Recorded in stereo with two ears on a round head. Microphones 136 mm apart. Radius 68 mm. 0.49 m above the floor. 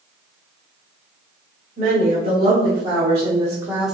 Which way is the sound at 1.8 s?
60° right (ahead or behind).